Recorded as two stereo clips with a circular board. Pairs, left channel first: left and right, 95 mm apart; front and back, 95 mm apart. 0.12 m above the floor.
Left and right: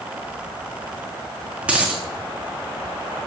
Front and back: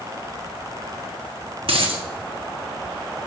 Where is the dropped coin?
165° right, 1.3 m.